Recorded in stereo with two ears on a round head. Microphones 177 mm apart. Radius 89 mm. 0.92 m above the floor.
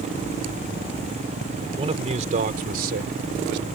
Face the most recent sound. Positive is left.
turn(degrees=-65)  # may be behind; listen again after turning